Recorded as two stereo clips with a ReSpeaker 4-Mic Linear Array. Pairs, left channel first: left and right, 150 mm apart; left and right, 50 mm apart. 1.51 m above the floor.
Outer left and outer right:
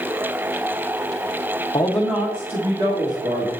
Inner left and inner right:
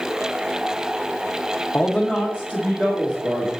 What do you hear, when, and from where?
1.7 s a man speaking: 25° left (ahead or behind), 0.7 m; by 3.5 s 40° right (ahead or behind), 2.5 m